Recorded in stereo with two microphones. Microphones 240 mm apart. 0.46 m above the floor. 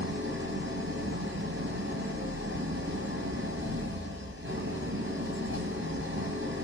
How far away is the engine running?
About 5 m.